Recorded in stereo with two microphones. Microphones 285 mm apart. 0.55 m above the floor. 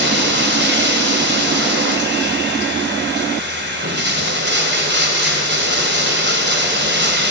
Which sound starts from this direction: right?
Running water, at 0.0 s.